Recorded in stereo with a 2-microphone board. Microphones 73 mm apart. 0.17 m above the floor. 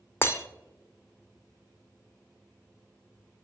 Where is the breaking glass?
35° left (ahead or behind), 0.7 m.